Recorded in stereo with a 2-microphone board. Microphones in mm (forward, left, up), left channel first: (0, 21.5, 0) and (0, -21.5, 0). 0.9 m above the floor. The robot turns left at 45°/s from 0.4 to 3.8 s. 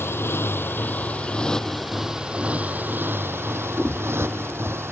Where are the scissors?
15° left (ahead or behind); by 4.8 s 10° left (ahead or behind).